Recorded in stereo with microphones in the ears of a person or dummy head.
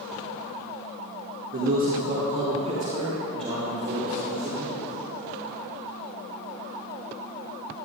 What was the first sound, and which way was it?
A man speaking, 40° right (ahead or behind).